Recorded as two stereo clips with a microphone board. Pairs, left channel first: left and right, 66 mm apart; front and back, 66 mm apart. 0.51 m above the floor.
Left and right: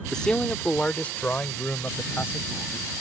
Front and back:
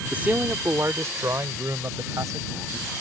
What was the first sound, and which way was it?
A man speaking, 155° left.